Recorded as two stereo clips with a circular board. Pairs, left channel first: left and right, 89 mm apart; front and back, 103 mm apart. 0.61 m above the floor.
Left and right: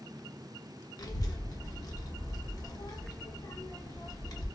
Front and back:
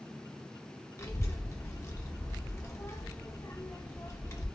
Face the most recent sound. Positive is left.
turn(degrees=55)